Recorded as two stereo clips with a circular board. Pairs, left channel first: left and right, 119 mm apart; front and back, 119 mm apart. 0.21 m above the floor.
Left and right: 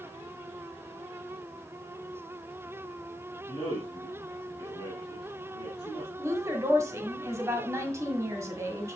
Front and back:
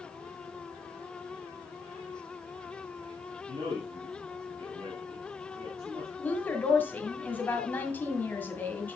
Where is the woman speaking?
55° right, 1.7 m.